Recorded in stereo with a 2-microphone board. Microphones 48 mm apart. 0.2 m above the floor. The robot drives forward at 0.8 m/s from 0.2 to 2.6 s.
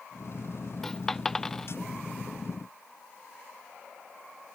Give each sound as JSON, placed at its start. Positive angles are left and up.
{"t": 0.8, "sound": "a dropped coin", "side_deg": 10}